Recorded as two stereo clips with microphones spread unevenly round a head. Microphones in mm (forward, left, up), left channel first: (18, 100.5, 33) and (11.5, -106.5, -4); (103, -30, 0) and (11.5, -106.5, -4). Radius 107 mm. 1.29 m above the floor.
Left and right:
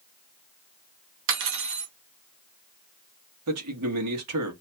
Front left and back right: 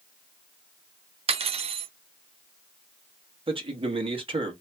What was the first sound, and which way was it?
Cutlery clinking, 120° right.